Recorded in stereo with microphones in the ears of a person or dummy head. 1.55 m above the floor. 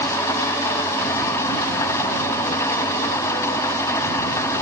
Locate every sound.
0.0 s an engine running: 15° left (ahead or behind)